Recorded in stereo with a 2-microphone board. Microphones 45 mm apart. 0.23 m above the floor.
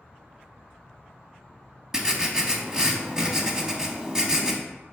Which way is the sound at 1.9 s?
15° right (ahead or behind).